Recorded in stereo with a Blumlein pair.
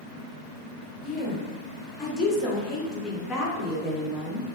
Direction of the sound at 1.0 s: 20° left.